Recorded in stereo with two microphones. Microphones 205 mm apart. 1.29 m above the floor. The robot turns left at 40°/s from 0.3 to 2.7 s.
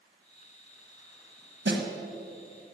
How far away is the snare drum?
About 1.3 m.